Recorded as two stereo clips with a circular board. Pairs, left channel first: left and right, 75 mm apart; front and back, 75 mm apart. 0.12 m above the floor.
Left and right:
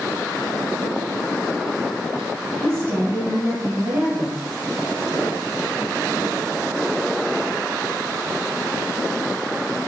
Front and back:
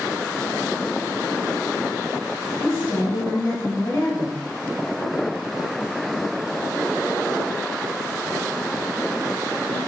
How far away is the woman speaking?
About 1.8 m.